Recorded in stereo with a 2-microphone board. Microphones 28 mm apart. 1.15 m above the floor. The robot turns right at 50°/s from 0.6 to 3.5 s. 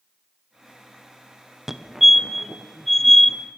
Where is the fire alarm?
15° right (ahead or behind), 1.0 m; by 3.4 s 10° left (ahead or behind), 1.0 m.